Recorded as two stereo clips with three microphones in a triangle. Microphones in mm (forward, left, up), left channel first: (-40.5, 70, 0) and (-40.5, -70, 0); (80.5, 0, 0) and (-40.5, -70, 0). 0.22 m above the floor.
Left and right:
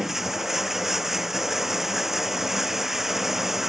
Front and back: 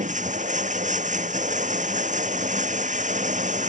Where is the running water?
Straight behind.